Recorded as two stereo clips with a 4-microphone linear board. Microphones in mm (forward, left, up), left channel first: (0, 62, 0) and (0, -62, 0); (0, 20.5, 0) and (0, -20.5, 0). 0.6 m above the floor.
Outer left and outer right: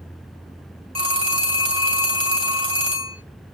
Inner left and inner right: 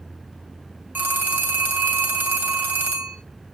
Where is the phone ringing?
50° right (ahead or behind), 3 m.